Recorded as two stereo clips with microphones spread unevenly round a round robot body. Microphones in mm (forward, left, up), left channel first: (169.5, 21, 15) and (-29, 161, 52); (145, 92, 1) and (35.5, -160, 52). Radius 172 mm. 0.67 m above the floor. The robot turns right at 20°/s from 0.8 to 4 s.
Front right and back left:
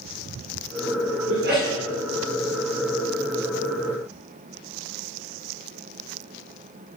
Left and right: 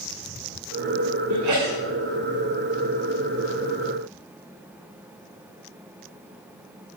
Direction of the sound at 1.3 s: 160° right.